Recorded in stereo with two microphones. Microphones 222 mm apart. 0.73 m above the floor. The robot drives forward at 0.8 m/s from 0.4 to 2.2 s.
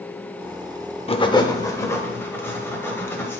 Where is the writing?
25° left (ahead or behind), 0.6 m; by 3.4 s 10° left (ahead or behind), 1.5 m.